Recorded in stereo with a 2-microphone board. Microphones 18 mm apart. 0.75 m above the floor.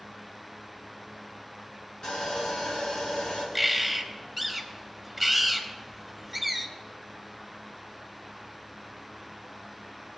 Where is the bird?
10° right (ahead or behind), 1.2 m.